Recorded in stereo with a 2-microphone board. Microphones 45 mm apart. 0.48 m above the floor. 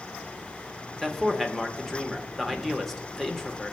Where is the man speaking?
5° left (ahead or behind), 1.0 m.